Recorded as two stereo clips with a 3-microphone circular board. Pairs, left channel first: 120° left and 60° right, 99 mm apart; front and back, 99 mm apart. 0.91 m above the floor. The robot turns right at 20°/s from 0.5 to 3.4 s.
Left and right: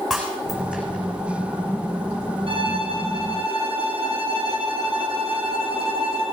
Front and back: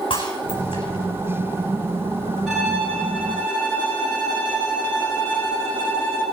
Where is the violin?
85° right, 4.5 m; by 6.2 s 70° right, 4.5 m.